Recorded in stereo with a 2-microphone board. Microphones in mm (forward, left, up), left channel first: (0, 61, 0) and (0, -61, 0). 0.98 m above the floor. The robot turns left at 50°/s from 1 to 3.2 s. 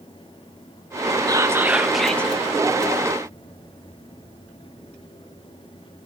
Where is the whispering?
145° right, 0.8 m; by 2.3 s 165° left, 0.8 m.